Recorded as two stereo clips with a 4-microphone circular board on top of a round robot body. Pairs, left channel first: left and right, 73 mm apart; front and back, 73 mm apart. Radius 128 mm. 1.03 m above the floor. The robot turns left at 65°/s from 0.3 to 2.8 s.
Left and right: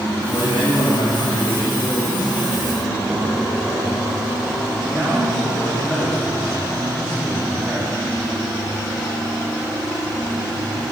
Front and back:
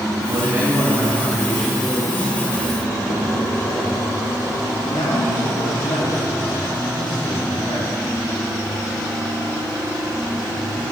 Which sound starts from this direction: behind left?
A man speaking, at 0.3 s.